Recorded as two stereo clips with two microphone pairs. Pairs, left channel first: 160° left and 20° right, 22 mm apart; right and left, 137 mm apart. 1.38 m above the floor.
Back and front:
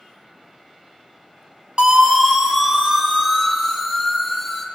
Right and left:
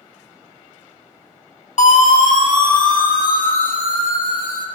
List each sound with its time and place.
1.8 s a siren: 60° right, 2 m; by 4.7 s 110° right, 2.5 m